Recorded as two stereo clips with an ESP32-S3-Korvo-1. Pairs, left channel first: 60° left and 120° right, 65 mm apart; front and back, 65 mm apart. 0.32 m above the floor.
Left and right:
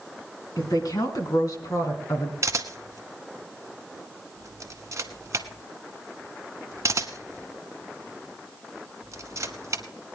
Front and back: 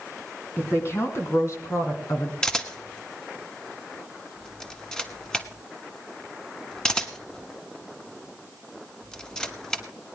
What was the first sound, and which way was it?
A woman speaking, 50° left.